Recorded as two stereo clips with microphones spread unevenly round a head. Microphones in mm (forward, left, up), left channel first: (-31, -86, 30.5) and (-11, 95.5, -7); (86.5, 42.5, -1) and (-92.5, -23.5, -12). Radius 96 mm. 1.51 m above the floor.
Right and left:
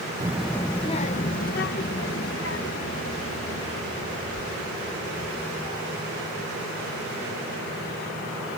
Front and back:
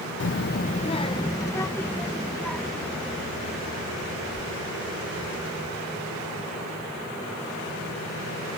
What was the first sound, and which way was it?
A child speaking, 5° left.